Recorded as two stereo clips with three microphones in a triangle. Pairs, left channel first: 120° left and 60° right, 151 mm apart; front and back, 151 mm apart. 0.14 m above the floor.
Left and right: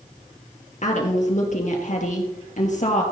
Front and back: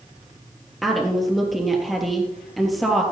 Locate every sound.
0.8 s a woman speaking: 90° left, 3 m